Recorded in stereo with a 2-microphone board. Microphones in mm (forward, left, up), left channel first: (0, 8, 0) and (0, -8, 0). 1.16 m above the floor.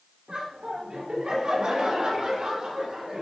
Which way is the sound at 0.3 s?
60° right (ahead or behind).